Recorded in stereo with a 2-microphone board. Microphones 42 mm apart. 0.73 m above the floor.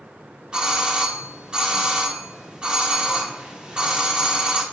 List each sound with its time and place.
0.5 s a doorbell: 25° right (ahead or behind), 1.0 m